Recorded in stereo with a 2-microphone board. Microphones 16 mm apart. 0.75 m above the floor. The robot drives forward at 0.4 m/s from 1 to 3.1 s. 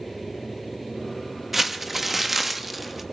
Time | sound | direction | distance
1.5 | crumpling | 10° right (ahead or behind) | 1.1 m